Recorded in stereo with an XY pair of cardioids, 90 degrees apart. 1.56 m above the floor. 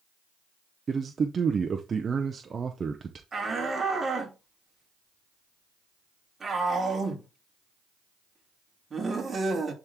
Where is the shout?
40° right, 3 m.